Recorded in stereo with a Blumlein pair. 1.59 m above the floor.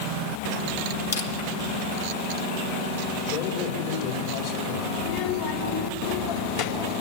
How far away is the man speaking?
About 4.5 m.